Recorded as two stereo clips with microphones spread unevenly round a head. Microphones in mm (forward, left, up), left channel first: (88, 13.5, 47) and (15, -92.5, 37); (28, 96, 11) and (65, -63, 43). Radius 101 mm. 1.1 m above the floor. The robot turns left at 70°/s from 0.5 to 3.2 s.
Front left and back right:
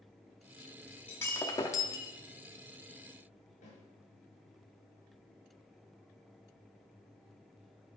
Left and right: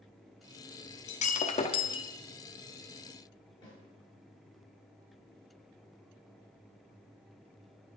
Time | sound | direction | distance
1.1 | breaking glass | 110° left | 0.6 m
3.6 | a snare drum | 40° left | 4 m